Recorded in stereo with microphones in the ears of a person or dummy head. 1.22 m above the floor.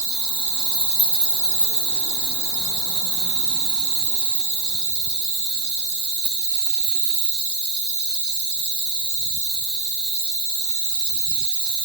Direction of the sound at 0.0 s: 60° right (ahead or behind).